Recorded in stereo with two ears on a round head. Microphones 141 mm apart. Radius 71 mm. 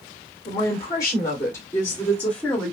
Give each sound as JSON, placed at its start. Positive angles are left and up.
{"t": 0.5, "sound": "a woman speaking", "side_deg": 20, "distance_m": 2.0}